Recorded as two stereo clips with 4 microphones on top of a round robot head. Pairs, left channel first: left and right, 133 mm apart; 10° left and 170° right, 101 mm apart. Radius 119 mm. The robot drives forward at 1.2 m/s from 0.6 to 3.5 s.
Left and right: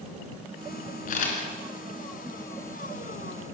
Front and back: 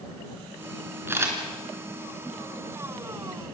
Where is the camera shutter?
120° left, 4 m; by 1.4 s 125° left, 4 m.